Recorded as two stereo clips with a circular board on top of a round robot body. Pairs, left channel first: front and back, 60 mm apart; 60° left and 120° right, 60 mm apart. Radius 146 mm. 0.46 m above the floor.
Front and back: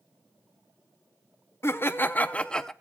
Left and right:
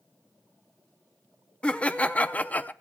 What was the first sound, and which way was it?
Laughter, 5° right.